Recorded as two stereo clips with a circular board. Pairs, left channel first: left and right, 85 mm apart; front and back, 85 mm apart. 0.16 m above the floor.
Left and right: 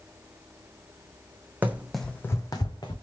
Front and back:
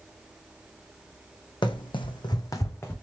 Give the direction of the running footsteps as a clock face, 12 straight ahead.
1 o'clock.